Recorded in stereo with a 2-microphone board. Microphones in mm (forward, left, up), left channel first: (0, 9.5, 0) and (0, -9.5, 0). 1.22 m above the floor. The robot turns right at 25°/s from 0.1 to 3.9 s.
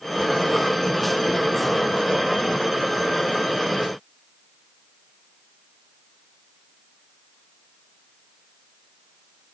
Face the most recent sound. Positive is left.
No sound to turn to.